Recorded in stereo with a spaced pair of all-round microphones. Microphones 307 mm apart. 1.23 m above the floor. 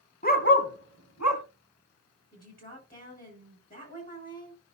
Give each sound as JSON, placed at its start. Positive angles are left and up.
{"t": 0.2, "sound": "a dog barking", "side_deg": 25, "distance_m": 1.5}
{"t": 2.3, "sound": "a woman speaking", "side_deg": 30, "distance_m": 5.5}